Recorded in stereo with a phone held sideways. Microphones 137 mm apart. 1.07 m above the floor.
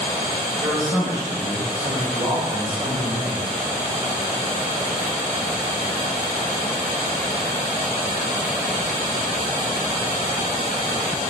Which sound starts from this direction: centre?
A man speaking, at 0.6 s.